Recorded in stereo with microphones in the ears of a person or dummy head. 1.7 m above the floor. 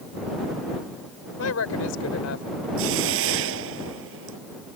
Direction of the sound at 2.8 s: 70° right (ahead or behind).